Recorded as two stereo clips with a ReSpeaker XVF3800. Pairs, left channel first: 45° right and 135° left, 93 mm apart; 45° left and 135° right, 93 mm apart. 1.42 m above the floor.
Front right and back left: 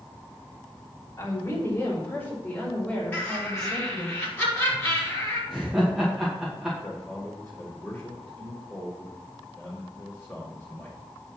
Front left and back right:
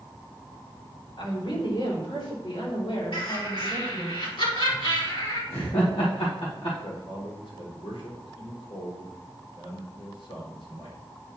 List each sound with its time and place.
1.2 s a woman speaking: 10° left, 3 m; by 4.1 s 40° left, 5.5 m
3.1 s laughter: 30° left, 4 m
5.5 s laughter: 50° left, 2 m
6.8 s a man speaking: 30° left, 4.5 m